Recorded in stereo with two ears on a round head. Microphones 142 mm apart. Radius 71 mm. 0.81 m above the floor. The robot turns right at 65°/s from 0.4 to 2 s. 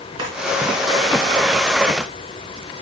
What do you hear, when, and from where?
0.2 s a drawer: 30° right (ahead or behind), 3 m